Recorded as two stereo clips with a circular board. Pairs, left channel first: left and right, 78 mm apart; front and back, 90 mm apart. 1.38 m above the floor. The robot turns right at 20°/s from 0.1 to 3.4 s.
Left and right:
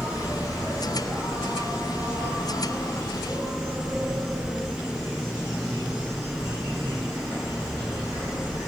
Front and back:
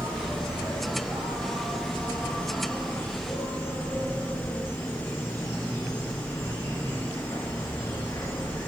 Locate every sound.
0.0 s an insect: 125° right, 2 m; by 8.7 s 60° right, 2 m